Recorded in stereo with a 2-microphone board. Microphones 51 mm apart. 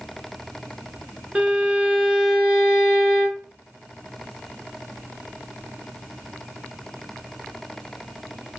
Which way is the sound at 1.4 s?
25° right (ahead or behind).